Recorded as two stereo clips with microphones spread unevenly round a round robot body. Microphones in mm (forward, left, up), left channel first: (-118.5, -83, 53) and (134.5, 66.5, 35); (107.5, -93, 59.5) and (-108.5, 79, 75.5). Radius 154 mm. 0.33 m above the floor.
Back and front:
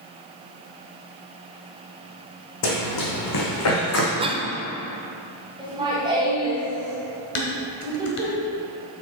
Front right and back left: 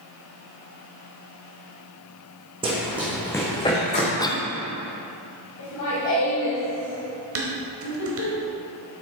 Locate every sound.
2.6 s running footsteps: 145° right, 1.6 m; by 4.1 s 105° right, 2.5 m
4.2 s a cough: 5° left, 0.8 m
5.6 s laughter: 40° right, 2 m
7.3 s dishes clattering: 175° left, 1.3 m